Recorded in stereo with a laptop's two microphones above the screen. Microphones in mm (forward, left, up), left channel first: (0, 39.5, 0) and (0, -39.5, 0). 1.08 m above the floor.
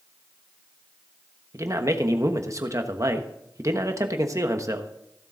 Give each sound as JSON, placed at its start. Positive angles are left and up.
{"t": 1.5, "sound": "a man speaking", "side_deg": -40, "distance_m": 1.1}